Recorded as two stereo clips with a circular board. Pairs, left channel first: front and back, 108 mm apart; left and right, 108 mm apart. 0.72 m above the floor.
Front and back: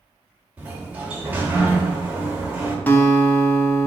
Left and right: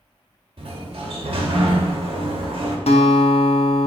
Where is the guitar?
75° left, 0.6 m.